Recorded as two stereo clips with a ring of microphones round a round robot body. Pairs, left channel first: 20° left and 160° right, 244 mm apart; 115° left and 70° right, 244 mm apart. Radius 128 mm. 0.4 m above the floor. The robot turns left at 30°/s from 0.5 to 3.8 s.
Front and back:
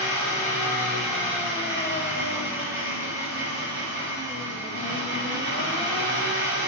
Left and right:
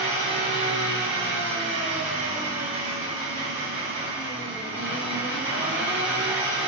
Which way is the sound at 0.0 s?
50° right.